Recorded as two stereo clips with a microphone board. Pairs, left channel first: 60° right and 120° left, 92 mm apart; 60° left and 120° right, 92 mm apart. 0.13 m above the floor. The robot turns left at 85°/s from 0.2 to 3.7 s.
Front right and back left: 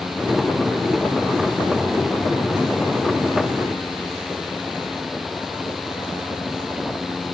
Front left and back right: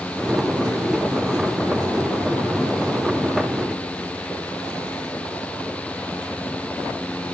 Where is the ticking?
I don't hear ticking.